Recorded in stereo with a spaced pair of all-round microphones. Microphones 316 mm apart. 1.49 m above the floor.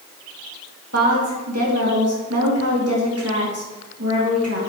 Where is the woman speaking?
50° right (ahead or behind), 3 m.